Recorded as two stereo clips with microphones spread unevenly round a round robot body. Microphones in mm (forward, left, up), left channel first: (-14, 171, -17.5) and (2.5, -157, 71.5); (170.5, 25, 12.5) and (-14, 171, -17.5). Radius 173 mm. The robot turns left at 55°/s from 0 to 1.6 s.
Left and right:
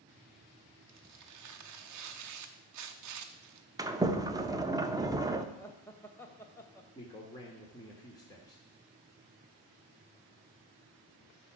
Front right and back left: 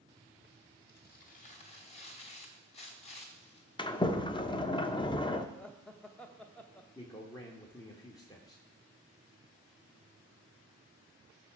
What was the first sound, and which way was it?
Tearing paper, 60° right.